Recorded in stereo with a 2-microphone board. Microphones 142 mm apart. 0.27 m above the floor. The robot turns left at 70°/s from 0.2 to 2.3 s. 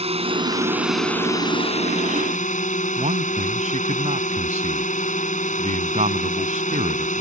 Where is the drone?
125° right; by 7.2 s 85° left.